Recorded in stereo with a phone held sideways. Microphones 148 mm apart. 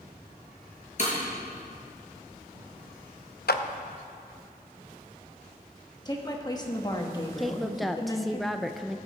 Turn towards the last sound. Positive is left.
turn(degrees=0)  # may be behind; listen again after turning